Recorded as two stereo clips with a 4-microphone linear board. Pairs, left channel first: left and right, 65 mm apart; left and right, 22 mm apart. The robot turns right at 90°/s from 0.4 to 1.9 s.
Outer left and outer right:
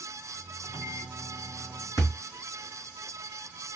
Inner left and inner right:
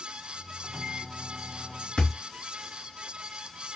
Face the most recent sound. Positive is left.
turn(degrees=80)